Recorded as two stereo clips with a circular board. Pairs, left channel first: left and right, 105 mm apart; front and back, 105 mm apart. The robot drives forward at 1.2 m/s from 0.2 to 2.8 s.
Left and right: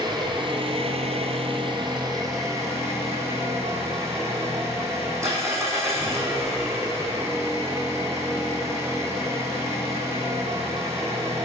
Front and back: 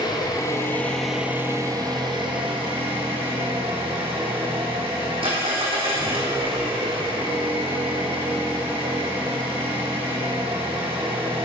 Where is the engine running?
45° right, 1.5 m; by 11.4 s 150° right, 2.5 m.